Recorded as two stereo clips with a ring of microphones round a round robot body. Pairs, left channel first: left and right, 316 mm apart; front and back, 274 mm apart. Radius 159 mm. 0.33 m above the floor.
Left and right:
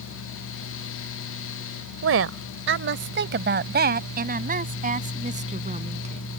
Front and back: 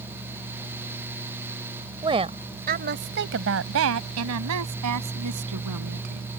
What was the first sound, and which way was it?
A woman speaking, 110° right.